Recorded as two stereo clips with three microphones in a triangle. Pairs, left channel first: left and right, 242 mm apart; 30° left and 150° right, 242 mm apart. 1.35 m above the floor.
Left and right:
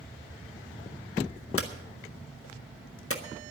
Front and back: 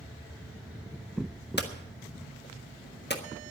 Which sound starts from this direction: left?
Hammering, at 1.6 s.